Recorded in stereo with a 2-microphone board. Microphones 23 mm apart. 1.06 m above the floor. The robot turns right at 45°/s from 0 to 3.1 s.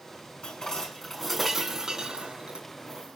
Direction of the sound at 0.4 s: 45° left (ahead or behind).